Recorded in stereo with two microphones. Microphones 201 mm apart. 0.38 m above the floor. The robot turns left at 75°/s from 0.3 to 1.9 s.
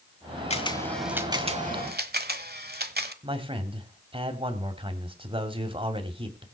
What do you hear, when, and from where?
0.5 s a camera shutter: 35° left (ahead or behind), 1.2 m; by 3.1 s 60° right (ahead or behind), 1.2 m
3.2 s a man speaking: 30° right (ahead or behind), 2 m